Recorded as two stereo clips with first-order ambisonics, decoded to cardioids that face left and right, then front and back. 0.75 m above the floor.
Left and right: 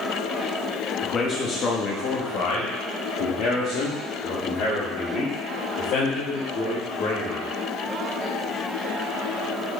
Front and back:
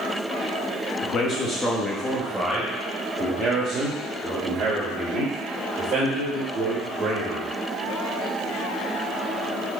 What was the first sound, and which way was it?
A man speaking, 35° left.